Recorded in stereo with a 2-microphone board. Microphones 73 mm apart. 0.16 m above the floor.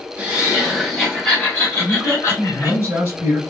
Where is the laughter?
15° right (ahead or behind), 1.2 m; by 2.8 s 40° left (ahead or behind), 1.4 m.